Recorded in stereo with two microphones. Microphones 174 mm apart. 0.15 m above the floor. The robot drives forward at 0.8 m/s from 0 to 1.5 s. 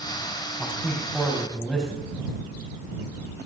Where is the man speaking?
Centre (ahead or behind), 4 m.